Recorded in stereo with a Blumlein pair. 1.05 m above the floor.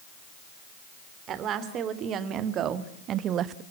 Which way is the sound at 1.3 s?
30° right.